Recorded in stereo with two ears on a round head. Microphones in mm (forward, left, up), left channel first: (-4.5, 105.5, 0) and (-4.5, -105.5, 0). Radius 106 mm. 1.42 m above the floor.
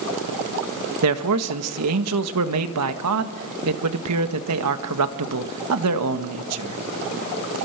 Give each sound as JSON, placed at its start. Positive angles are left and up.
{"t": 1.0, "sound": "a man speaking", "side_deg": -75, "distance_m": 1.7}